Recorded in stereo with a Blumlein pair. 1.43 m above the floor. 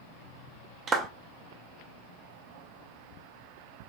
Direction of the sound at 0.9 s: 20° right.